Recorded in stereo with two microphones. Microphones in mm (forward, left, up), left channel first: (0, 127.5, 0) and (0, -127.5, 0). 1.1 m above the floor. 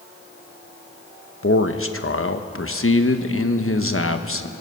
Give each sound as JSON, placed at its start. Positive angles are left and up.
{"t": 1.4, "sound": "a man speaking", "side_deg": 55, "distance_m": 1.1}